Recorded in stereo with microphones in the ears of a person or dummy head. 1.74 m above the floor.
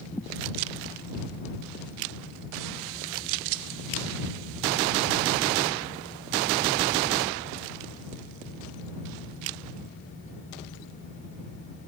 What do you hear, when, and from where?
0.1 s a thud: 10° left (ahead or behind)